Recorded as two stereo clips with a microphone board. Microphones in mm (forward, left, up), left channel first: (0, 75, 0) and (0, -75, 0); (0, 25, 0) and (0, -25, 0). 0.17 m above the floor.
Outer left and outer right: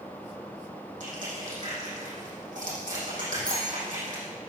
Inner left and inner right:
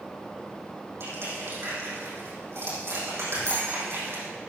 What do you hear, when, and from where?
1.0 s crushing: 60° right (ahead or behind), 6 m
3.5 s a bell: 75° right (ahead or behind), 6 m